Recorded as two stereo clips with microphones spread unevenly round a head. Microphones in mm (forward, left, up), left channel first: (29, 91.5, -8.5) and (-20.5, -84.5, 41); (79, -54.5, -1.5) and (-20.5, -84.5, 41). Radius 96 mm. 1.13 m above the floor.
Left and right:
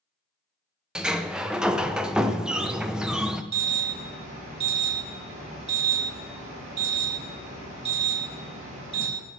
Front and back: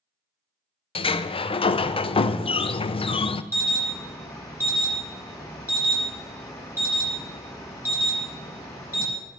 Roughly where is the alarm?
Ahead right.